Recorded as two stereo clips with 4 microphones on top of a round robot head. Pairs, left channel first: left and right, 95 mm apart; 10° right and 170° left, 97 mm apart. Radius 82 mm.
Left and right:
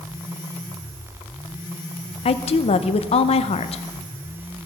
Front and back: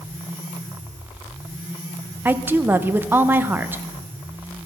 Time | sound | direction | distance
2.2 | a woman speaking | 100° left | 0.6 m